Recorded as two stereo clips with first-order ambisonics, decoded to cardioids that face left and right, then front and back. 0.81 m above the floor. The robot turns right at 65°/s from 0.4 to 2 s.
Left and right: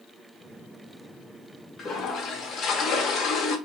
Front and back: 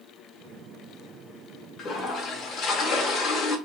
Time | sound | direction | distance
1.8 | a toilet flushing | 30° left | 0.5 m